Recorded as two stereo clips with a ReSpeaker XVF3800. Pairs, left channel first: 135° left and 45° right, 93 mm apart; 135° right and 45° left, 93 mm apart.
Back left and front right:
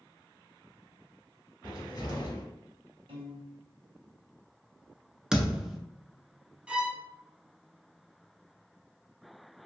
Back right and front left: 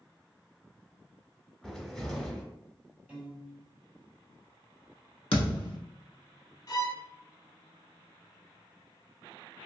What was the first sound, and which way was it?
A cupboard door, 140° left.